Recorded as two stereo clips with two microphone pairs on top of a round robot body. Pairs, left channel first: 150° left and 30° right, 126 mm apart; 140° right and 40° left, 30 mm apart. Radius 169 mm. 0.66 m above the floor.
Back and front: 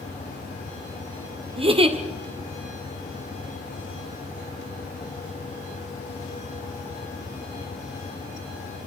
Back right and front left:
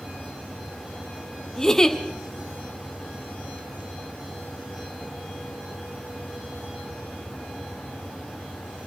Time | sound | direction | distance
1.6 | a giggle | 75° right | 2.5 m